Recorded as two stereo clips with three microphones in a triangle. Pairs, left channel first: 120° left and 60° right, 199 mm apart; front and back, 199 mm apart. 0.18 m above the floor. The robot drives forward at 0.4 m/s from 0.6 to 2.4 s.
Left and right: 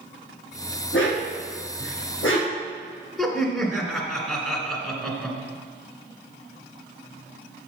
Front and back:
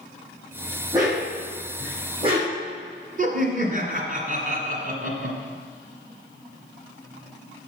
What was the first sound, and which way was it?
A dog barking, 110° left.